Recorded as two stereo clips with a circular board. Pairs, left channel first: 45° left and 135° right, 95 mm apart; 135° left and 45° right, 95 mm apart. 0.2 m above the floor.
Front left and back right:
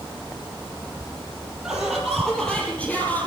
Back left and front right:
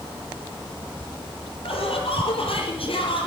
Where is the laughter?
140° left, 5.5 m; by 3.3 s 115° left, 5.5 m.